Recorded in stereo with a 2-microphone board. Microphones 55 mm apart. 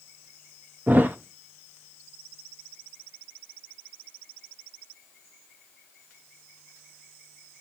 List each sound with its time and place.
0.9 s a thud: 35° right (ahead or behind), 0.8 m